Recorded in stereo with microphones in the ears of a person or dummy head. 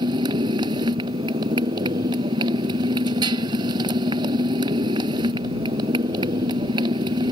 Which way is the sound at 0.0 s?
25° right (ahead or behind).